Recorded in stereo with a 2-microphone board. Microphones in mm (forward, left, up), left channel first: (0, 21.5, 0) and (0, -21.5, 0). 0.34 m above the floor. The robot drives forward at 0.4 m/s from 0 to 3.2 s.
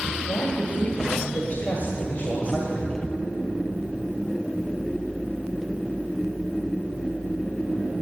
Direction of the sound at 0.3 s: 40° left (ahead or behind).